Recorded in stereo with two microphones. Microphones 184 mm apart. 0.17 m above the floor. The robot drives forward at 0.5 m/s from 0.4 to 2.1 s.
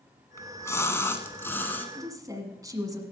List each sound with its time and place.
0.4 s a splash: 15° left (ahead or behind), 0.9 m; by 1.9 s 10° left (ahead or behind), 1.4 m
1.9 s a woman speaking: 20° right (ahead or behind), 1.6 m